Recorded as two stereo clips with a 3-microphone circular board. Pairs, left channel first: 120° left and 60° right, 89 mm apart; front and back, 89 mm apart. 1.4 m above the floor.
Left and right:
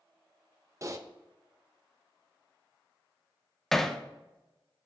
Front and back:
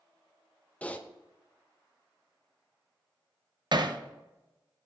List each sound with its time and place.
0.8 s typing on a keyboard: 60° right, 0.7 m
3.7 s hammering: 155° right, 0.7 m